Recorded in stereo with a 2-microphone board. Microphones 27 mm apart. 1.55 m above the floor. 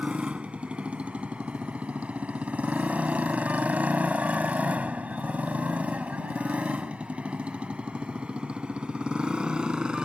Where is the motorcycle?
50° right (ahead or behind); by 10.1 s 35° right (ahead or behind).